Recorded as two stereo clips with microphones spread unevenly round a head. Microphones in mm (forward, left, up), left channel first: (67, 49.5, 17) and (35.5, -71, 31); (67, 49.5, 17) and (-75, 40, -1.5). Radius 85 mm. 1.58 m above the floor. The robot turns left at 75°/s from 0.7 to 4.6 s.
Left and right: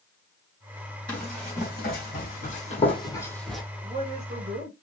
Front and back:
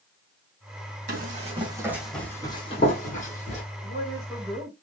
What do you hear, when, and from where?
1.1 s running footsteps: 165° left, 4 m; by 3.6 s 20° right, 2.5 m
3.8 s a woman speaking: 45° right, 2.5 m; by 4.7 s 100° right, 2.5 m